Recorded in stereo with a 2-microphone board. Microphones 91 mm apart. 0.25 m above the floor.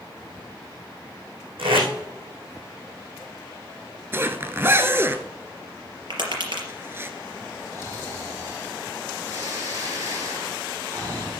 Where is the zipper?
25° right (ahead or behind), 0.9 m.